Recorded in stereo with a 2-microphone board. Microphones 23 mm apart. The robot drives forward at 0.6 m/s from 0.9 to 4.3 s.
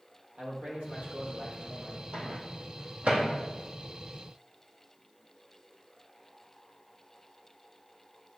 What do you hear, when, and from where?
0.4 s a man speaking: 70° right (ahead or behind), 4 m; by 2.0 s 65° right (ahead or behind), 4 m
2.1 s a microwave: 65° right (ahead or behind), 3 m; by 3.3 s 70° right (ahead or behind), 3 m